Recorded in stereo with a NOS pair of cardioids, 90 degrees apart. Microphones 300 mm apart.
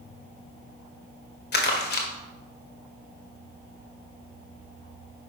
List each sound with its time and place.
1.5 s crumpling: 35° left, 1.9 m